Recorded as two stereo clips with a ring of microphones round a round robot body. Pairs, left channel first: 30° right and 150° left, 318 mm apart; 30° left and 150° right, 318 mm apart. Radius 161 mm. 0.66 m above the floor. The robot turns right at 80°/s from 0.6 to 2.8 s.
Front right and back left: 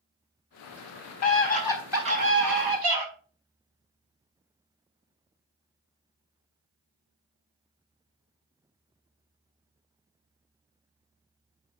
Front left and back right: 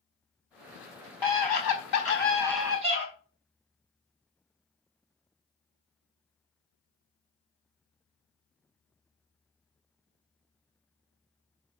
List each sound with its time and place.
1.2 s a scream: 10° left, 5 m; by 3.0 s 140° left, 5 m